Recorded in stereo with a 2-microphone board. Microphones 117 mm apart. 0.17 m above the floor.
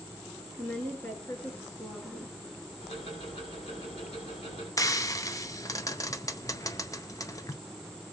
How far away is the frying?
About 0.8 m.